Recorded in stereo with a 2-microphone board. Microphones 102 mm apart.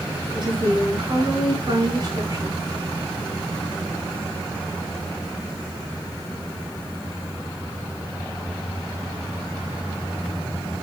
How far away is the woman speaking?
About 6 m.